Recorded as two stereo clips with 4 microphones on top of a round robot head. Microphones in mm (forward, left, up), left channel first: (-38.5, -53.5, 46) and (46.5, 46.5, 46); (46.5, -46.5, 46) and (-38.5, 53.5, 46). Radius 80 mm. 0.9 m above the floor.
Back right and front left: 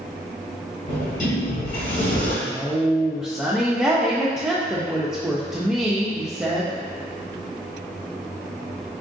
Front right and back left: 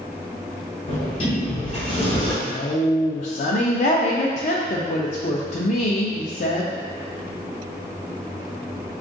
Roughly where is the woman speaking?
Ahead right.